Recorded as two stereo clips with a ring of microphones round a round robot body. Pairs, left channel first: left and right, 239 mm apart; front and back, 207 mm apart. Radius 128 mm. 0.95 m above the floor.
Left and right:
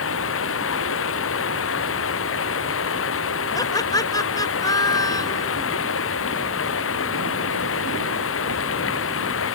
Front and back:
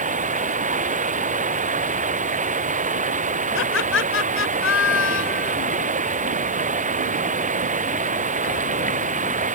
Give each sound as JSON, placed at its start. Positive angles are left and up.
{"t": 0.0, "sound": "running water", "azimuth_deg": 125}
{"t": 3.5, "sound": "laughter", "azimuth_deg": 15}